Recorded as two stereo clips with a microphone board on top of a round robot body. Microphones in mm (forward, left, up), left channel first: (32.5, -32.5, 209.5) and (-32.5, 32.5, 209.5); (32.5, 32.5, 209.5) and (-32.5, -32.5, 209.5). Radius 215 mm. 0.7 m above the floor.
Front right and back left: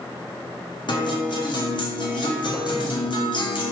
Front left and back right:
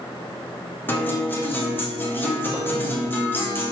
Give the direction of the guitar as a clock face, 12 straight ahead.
1 o'clock.